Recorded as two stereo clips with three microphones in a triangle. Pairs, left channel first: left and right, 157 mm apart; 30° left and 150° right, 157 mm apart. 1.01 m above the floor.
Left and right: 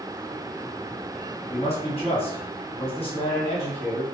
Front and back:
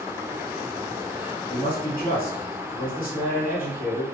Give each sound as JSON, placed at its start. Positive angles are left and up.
{"t": 1.5, "sound": "a man speaking", "azimuth_deg": 40, "distance_m": 1.0}